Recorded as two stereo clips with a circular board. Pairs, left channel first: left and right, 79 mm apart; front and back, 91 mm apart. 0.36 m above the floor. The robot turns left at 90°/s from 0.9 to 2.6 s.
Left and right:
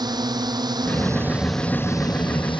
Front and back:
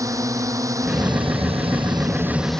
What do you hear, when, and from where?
0.0 s a drone: 125° right; by 2.6 s 80° left